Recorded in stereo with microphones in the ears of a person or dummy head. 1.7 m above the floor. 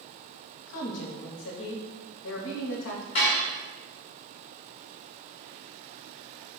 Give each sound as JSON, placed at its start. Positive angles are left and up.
{"t": 0.7, "sound": "a woman speaking", "side_deg": 75, "distance_m": 1.0}
{"t": 3.1, "sound": "dishes clattering", "side_deg": 40, "distance_m": 1.4}